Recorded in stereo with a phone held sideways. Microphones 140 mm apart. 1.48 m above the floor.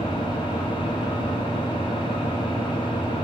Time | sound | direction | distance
0.0 | an engine running | 35° left (ahead or behind) | 1.4 m